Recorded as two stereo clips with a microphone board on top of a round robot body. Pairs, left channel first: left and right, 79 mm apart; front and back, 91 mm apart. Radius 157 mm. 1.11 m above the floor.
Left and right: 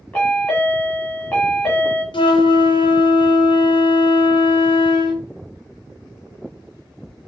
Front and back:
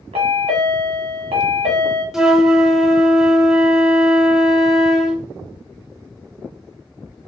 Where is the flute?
95° left, 0.6 m.